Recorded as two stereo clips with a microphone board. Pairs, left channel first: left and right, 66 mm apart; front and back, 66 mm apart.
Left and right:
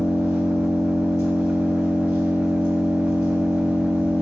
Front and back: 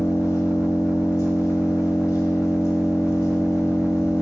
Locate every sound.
0.0 s an engine running: 45° right, 1.7 m